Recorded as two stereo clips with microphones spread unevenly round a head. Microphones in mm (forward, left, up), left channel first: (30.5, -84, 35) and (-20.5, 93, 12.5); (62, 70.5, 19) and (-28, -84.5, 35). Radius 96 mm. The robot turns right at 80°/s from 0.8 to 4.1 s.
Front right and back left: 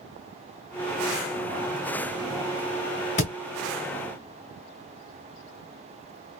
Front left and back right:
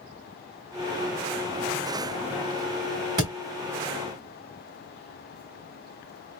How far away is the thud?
About 1.3 m.